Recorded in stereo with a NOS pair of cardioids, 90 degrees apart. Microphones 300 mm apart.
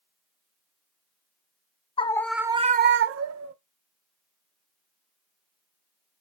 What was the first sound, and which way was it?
A scream, 20° left.